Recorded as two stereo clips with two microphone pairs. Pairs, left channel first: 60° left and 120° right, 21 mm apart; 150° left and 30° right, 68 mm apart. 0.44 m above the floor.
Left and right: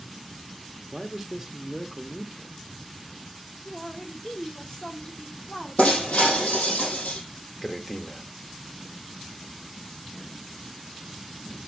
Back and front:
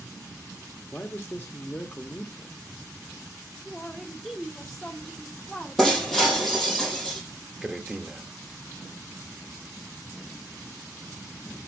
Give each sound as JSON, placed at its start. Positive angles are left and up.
{"t": 0.9, "sound": "a man speaking", "azimuth_deg": 165, "distance_m": 0.8}
{"t": 3.6, "sound": "a man speaking", "azimuth_deg": 70, "distance_m": 1.0}
{"t": 5.8, "sound": "breaking glass", "azimuth_deg": 65, "distance_m": 3.5}
{"t": 7.6, "sound": "a man speaking", "azimuth_deg": 25, "distance_m": 0.7}